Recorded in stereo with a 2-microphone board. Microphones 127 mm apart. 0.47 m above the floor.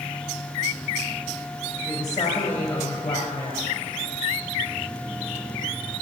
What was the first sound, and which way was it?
A woman speaking, 25° left (ahead or behind).